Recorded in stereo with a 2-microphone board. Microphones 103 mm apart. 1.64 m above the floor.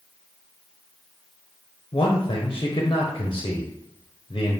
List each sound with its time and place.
1.9 s a man speaking: 45° left (ahead or behind), 0.7 m